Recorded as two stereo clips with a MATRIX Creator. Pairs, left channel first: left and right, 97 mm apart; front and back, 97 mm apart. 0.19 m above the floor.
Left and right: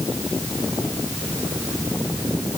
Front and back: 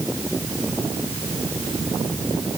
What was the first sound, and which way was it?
Only background noise.